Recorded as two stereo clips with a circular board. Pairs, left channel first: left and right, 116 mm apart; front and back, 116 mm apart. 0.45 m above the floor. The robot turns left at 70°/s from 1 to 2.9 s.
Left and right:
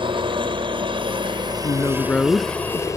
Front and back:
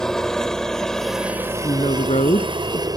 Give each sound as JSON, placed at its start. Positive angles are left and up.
{"t": 0.0, "sound": "a helicopter", "azimuth_deg": -85}
{"t": 1.6, "sound": "a woman speaking", "azimuth_deg": 45}